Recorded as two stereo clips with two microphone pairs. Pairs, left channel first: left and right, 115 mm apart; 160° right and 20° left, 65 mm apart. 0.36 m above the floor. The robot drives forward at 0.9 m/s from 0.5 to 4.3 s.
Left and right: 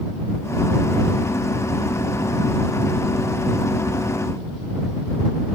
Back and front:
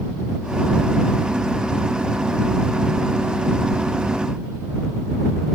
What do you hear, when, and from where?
Only background noise.